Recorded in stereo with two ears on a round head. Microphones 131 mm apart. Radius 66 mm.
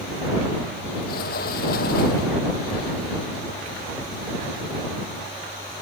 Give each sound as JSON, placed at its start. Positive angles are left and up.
{"t": 1.1, "sound": "a sliding door", "side_deg": 70}